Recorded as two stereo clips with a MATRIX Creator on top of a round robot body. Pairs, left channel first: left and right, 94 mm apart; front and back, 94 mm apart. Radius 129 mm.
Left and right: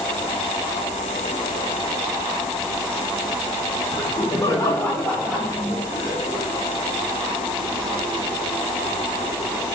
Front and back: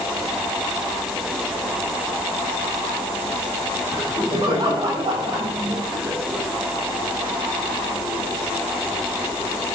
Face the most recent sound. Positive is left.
turn(degrees=-115)